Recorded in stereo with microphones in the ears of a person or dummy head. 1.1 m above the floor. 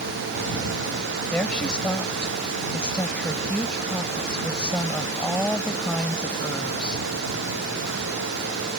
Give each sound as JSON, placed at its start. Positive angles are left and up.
{"t": 1.3, "sound": "a woman speaking", "side_deg": 5}